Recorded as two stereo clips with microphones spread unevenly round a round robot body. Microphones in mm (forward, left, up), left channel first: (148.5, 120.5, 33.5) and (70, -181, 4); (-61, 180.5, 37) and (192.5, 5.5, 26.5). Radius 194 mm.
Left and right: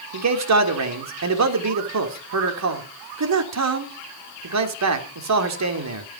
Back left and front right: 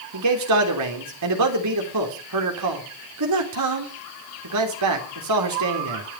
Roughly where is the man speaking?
Right.